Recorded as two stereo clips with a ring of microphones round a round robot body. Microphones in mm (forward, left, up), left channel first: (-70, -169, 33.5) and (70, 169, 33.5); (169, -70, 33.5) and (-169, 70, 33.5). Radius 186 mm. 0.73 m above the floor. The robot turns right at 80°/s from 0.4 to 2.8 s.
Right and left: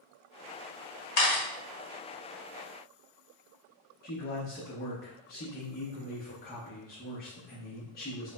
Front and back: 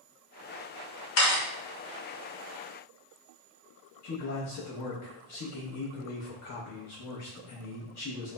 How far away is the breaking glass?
No breaking glass in this recording.